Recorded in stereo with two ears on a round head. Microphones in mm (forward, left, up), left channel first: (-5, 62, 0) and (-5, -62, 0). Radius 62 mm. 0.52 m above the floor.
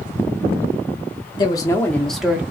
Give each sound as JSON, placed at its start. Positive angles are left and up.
{"t": 1.4, "sound": "a woman speaking", "side_deg": 30, "distance_m": 1.1}